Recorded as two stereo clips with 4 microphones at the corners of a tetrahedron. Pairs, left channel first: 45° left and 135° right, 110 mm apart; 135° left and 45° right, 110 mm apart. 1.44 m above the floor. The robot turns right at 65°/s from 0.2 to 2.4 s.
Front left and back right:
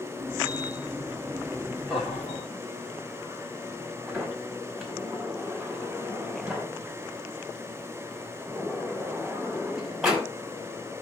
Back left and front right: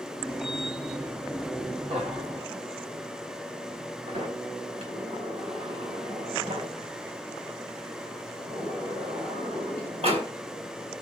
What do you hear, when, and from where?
1.9 s laughter: 50° right, 4 m; by 2.5 s 15° right, 4 m
4.1 s a sliding door: 50° right, 5.5 m